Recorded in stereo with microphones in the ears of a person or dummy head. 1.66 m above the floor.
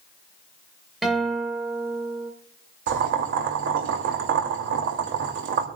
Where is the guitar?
5° right (ahead or behind), 2.5 m.